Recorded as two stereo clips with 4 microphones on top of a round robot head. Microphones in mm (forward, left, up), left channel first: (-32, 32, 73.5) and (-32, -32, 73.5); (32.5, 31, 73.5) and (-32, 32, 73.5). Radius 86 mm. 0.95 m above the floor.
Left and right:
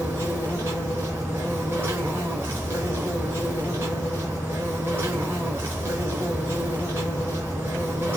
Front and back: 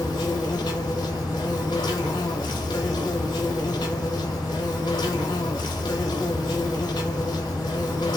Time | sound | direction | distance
0.0 | an insect | 20° right | 0.9 m